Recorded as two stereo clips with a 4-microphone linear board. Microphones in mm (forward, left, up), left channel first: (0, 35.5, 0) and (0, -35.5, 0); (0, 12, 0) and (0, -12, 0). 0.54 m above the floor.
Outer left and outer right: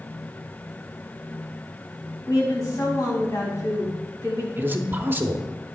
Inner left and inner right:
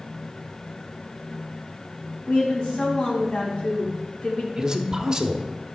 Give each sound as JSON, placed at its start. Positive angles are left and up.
{"t": 2.3, "sound": "a woman speaking", "side_deg": 55, "distance_m": 4.0}
{"t": 4.6, "sound": "a man speaking", "side_deg": -25, "distance_m": 0.9}